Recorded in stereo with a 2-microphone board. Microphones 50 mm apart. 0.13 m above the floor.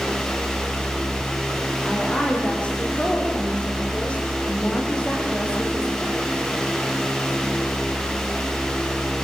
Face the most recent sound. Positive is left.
turn(degrees=25)  # may be behind; listen again after turning